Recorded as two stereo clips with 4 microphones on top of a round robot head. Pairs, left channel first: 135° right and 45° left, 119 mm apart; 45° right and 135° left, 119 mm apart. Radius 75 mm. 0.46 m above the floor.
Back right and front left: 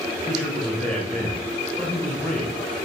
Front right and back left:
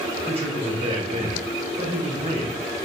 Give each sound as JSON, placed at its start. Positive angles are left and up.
{"t": 0.3, "sound": "a man speaking", "azimuth_deg": 140, "distance_m": 2.0}